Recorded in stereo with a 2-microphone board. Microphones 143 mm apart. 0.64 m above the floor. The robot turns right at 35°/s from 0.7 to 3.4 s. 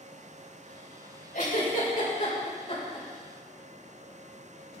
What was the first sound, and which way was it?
A giggle, 70° left (ahead or behind).